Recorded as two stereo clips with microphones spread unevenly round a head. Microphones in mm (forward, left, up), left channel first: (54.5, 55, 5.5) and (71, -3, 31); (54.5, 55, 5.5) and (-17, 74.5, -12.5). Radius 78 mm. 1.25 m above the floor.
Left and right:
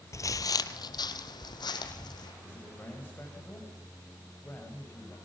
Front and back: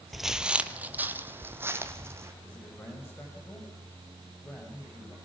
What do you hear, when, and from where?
0.1 s footsteps: 60° left, 1.7 m; by 2.3 s 105° left, 4.5 m
2.4 s a man speaking: 40° left, 6 m